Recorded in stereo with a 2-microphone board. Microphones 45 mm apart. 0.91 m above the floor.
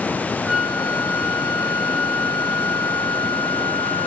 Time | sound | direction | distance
0.5 | a flute | 20° right (ahead or behind) | 0.5 m